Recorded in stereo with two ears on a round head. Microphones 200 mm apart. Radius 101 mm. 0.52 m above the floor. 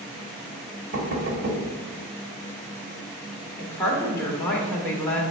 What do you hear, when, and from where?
0.9 s knocking: 40° right (ahead or behind), 1.5 m
3.6 s a woman speaking: 10° left (ahead or behind), 1.5 m